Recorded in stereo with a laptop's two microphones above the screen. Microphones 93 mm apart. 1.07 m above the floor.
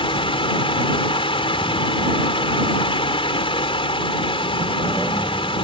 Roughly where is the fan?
Left.